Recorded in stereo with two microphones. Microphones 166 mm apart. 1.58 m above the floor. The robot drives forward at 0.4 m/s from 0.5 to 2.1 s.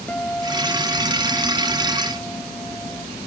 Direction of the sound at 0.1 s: 10° left (ahead or behind).